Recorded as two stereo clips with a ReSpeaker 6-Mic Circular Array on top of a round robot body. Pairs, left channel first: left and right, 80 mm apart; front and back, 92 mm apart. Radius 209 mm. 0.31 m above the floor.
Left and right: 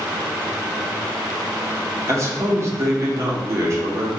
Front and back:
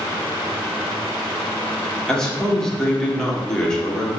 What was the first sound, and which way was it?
A man speaking, 80° right.